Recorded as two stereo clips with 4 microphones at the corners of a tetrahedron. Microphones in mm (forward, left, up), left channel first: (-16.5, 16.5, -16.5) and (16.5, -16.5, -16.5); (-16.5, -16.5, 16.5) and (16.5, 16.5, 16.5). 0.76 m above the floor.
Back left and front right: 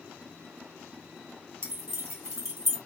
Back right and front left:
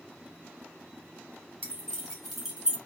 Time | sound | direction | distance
1.6 | keys jangling | 70° right | 1.9 m